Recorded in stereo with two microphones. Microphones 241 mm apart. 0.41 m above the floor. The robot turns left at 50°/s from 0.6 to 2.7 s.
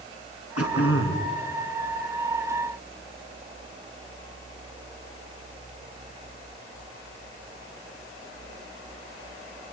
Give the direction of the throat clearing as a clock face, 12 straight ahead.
9 o'clock.